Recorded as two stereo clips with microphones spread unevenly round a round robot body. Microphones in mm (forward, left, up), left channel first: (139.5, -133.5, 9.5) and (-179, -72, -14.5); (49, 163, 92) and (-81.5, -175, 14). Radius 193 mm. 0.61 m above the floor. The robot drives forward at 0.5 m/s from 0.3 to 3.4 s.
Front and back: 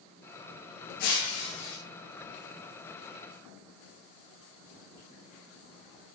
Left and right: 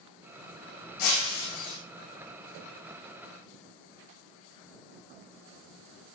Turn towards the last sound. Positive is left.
turn(degrees=70)